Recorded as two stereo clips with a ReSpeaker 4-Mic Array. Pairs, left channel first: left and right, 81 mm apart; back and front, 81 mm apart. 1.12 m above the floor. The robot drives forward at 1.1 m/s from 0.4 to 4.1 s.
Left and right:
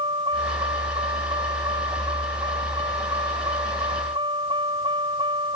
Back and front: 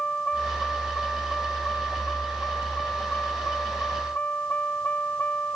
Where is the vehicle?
100° right; by 5.5 s 110° right.